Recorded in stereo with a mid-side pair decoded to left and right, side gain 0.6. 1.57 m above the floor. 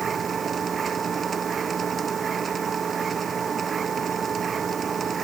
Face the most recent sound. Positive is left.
turn(degrees=-30)